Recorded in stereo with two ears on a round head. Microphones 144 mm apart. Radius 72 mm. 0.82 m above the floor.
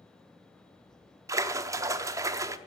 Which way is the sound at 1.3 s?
20° right (ahead or behind).